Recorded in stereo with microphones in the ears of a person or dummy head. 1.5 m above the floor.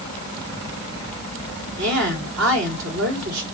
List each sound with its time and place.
1.8 s a woman speaking: 70° right (ahead or behind), 3 m